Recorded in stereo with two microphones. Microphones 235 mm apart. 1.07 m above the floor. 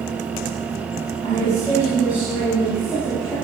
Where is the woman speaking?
25° left (ahead or behind), 5.5 m; by 3.3 s 15° left (ahead or behind), 8.5 m.